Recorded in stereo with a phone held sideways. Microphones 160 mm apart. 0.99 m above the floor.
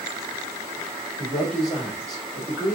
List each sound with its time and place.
1.2 s a man speaking: centre (ahead or behind), 2 m